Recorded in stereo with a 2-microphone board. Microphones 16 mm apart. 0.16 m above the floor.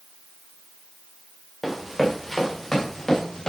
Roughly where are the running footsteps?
Centre.